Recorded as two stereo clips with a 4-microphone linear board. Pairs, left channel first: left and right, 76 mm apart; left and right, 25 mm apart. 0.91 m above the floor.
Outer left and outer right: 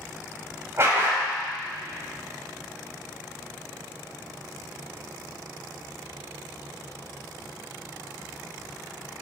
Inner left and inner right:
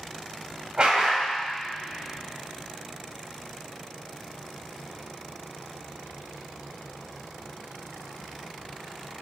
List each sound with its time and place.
0.8 s a dog barking: 35° right (ahead or behind), 2.0 m